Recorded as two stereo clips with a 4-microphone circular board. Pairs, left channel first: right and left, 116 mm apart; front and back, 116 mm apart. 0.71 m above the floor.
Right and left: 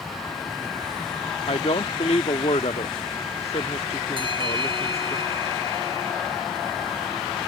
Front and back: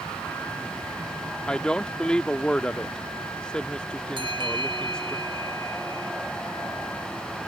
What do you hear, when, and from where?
1.5 s a woman speaking: 80° right
4.2 s a bell: 135° left